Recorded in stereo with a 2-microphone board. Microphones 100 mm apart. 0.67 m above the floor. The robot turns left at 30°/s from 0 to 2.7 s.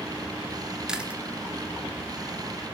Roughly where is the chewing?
Centre.